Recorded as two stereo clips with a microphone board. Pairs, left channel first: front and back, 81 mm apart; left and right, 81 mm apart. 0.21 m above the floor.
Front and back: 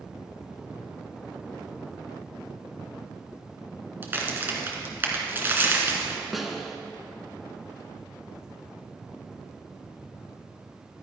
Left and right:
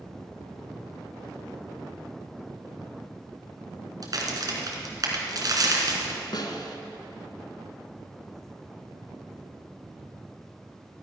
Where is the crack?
120° right, 2 m.